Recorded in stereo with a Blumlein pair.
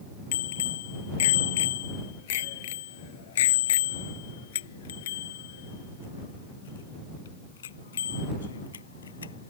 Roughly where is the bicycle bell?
Ahead left.